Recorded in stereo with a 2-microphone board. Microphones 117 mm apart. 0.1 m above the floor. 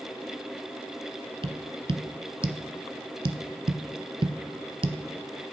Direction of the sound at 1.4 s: 50° right (ahead or behind).